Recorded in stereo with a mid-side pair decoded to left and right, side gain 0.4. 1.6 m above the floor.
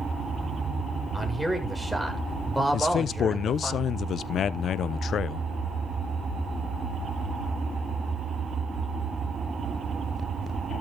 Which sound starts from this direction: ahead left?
A man speaking, at 2.7 s.